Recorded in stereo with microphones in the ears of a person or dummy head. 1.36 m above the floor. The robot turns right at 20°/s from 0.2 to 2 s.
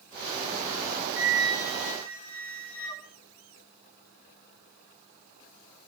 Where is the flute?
5° right (ahead or behind), 3 m; by 3.0 s 10° left (ahead or behind), 3 m.